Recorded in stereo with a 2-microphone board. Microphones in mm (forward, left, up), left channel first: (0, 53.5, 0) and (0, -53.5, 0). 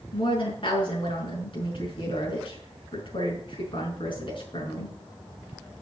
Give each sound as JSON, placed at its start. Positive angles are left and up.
{"t": 0.1, "sound": "a woman speaking", "side_deg": 50, "distance_m": 5.5}